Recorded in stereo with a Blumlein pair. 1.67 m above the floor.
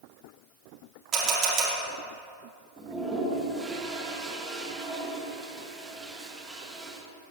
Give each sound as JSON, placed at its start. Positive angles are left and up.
{"t": 1.1, "sound": "a camera shutter", "azimuth_deg": -25, "distance_m": 5.0}
{"t": 2.8, "sound": "a toilet flushing", "azimuth_deg": -10, "distance_m": 2.5}